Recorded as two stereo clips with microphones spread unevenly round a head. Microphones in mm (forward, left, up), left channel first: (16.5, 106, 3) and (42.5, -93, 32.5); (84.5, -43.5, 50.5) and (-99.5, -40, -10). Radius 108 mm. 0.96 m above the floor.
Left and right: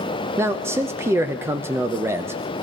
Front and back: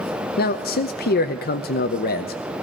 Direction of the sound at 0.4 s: Straight ahead.